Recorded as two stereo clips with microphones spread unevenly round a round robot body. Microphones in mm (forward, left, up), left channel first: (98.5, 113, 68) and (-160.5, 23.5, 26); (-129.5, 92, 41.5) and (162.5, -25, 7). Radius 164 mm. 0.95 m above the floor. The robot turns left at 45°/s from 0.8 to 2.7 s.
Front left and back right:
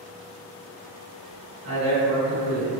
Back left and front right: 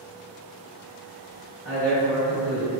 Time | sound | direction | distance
1.6 | a man speaking | 160° right | 1.5 m